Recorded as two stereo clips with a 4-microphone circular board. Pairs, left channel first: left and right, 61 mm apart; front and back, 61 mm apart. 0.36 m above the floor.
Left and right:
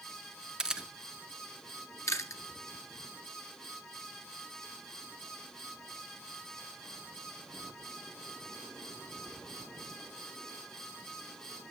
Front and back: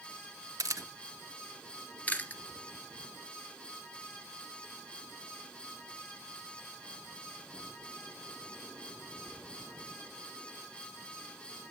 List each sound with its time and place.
0.6 s a camera shutter: 165° right, 0.6 m
2.1 s chewing: 65° left, 1.2 m